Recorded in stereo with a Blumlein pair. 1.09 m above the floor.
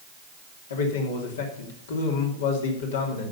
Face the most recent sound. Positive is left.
turn(degrees=60)